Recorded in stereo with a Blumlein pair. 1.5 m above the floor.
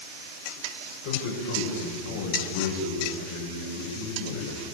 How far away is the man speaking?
About 8 m.